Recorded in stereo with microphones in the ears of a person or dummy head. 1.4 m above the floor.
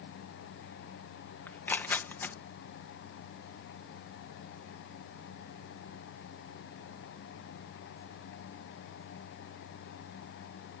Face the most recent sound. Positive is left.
turn(degrees=10)  # may be behind; listen again after turning